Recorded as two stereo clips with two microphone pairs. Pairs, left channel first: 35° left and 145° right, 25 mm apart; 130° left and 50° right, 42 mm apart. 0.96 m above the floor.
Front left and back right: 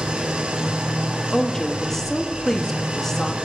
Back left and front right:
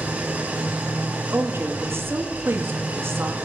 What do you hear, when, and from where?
0.0 s an engine running: 105° right, 1.7 m
1.3 s a woman speaking: 40° right, 1.3 m